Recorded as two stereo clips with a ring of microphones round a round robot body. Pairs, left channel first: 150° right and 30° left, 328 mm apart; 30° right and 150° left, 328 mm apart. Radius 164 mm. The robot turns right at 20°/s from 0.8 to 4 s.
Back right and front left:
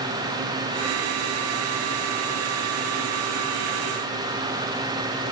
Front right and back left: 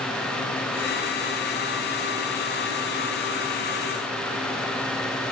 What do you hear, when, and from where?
Only background noise.